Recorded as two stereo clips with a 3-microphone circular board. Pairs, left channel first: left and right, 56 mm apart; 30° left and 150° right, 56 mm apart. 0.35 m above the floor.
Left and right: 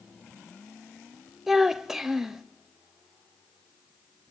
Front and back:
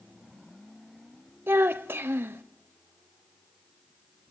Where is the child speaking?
175° right, 0.6 m.